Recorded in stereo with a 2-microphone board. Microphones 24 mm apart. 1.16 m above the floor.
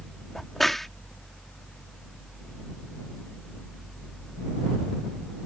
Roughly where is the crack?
Centre.